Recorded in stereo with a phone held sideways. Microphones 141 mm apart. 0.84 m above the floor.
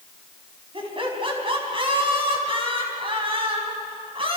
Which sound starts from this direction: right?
Laughter, at 0.7 s.